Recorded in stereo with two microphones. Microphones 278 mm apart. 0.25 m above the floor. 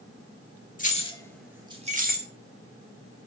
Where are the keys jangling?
30° left (ahead or behind), 0.7 m; by 2.3 s 40° right (ahead or behind), 0.8 m.